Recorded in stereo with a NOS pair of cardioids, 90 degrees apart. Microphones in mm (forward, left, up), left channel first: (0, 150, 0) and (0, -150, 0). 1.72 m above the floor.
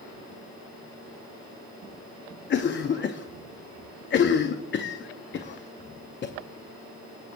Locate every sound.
2.5 s a cough: 40° left, 0.6 m